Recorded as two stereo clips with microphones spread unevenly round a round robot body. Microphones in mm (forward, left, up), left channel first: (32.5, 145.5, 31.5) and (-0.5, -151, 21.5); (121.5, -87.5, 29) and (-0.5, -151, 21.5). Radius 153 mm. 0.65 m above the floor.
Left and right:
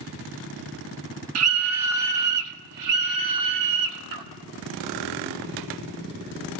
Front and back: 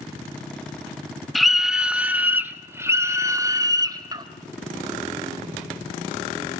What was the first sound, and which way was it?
A scream, 65° right.